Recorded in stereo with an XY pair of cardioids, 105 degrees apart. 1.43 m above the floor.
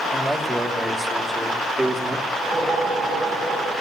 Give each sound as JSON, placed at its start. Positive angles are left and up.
{"t": 0.1, "sound": "a man speaking", "azimuth_deg": -10, "distance_m": 3.0}
{"t": 2.3, "sound": "a whoosh", "azimuth_deg": -65, "distance_m": 10.0}